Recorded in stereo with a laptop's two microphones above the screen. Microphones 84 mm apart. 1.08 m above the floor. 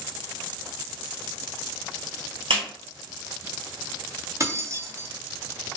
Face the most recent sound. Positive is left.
turn(degrees=-35)  # may be behind; listen again after turning